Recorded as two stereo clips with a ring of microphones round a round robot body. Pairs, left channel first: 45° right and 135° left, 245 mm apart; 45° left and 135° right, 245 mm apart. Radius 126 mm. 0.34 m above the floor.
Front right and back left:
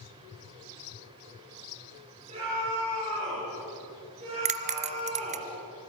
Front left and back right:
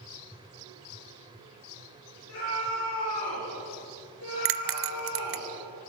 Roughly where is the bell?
Behind.